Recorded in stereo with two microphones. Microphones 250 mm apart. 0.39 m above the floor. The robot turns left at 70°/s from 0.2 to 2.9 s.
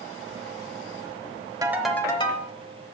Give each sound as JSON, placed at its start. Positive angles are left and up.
{"t": 1.6, "sound": "a ringtone", "azimuth_deg": -165, "distance_m": 1.0}